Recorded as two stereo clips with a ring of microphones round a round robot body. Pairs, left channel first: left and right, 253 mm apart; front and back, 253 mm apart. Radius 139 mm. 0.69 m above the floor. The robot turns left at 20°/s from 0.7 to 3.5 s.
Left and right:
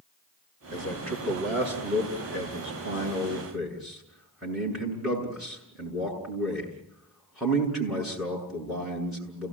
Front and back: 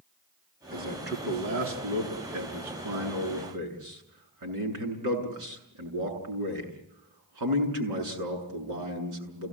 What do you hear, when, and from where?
0.7 s a man speaking: 125° right, 7.5 m; by 9.5 s straight behind, 7.5 m